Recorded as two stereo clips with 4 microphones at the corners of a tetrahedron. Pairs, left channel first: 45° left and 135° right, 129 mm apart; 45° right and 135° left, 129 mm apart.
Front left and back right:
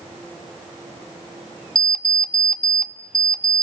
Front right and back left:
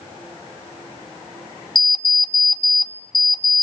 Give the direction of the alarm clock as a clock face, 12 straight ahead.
1 o'clock.